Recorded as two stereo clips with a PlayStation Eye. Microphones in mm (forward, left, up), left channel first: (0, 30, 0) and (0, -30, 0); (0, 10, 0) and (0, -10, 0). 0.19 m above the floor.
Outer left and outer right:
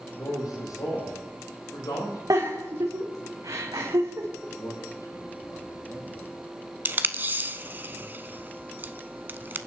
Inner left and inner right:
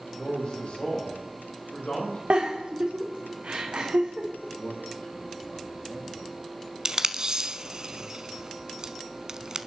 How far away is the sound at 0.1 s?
About 7.5 m.